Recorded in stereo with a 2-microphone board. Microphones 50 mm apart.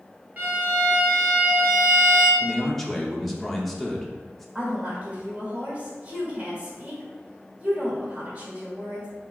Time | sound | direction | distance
0.4 | a violin | 35° right (ahead or behind) | 0.9 m
2.4 | a man speaking | 5° left (ahead or behind) | 0.7 m
4.5 | a woman speaking | 25° right (ahead or behind) | 1.7 m